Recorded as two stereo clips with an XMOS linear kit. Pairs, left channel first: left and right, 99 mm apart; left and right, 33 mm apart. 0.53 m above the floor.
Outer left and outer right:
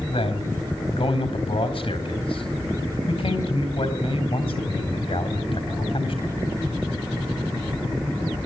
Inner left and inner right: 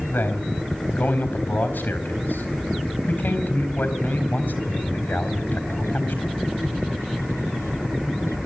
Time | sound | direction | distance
0.1 | a man speaking | 65° left (ahead or behind) | 4 m